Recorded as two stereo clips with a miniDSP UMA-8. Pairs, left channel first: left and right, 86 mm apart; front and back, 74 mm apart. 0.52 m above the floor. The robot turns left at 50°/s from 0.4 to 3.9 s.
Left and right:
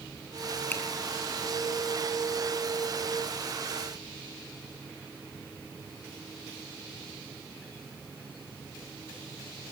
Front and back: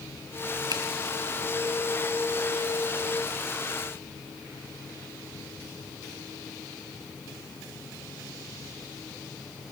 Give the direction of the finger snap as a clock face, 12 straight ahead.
7 o'clock.